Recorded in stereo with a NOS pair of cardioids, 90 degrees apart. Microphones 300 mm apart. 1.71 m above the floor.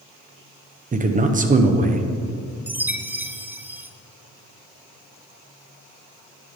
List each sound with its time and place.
0.9 s a man speaking: 25° right, 1.0 m
2.7 s a chime: 5° right, 0.6 m